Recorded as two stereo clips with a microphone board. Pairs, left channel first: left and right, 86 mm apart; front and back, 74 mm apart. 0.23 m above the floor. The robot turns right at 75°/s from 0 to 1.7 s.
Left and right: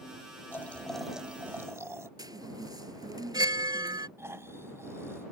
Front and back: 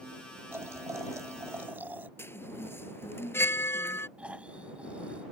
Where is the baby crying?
I don't hear a baby crying.